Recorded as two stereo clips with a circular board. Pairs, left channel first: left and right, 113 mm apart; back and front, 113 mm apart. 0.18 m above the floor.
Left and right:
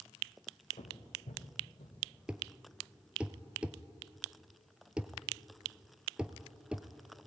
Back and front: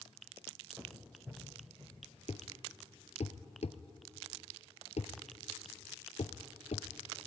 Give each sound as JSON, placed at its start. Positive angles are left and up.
{"t": 0.8, "sound": "footsteps", "azimuth_deg": 75, "distance_m": 3.0}
{"t": 2.3, "sound": "a thud", "azimuth_deg": -170, "distance_m": 0.9}